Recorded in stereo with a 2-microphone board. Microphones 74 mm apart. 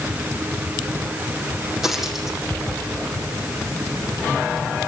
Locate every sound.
1.8 s a dropped coin: 5° right (ahead or behind), 6 m